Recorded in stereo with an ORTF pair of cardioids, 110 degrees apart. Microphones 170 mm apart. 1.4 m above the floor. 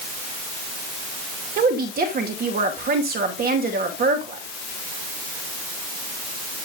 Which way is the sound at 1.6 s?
65° right.